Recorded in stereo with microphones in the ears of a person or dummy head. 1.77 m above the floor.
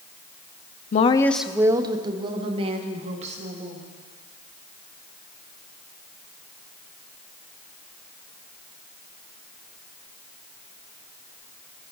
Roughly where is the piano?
No piano in this recording.